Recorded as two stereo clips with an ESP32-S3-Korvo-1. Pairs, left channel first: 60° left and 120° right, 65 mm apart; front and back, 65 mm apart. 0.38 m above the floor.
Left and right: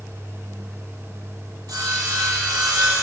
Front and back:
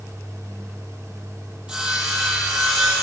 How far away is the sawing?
About 8.5 m.